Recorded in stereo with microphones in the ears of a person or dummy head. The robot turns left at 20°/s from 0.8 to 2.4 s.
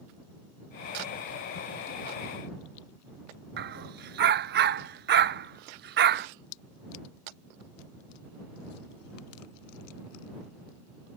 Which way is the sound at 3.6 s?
60° right (ahead or behind).